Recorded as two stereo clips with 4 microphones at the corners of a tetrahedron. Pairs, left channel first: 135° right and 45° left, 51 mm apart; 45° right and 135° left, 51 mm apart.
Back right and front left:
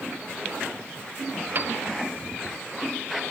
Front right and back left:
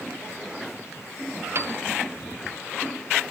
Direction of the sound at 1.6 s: 95° left.